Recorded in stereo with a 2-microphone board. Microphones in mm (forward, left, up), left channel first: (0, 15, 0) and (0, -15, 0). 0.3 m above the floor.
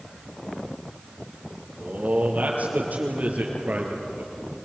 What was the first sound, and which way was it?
A man speaking, 65° right (ahead or behind).